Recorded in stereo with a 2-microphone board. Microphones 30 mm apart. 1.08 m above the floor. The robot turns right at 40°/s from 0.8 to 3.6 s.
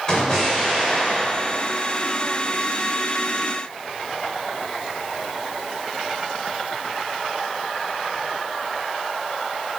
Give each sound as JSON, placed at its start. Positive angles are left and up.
{"t": 0.1, "sound": "an explosion", "side_deg": 30, "distance_m": 1.7}